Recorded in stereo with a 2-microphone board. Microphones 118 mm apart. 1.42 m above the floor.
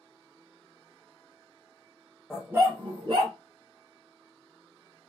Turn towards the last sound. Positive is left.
turn(degrees=-65)  # may be behind; listen again after turning